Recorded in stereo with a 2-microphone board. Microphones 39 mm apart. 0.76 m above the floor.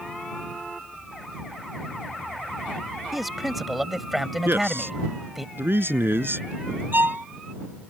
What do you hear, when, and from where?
3.1 s a man speaking: 5° right (ahead or behind)
4.5 s a man speaking: 75° right (ahead or behind)
6.9 s a violin: 65° right (ahead or behind)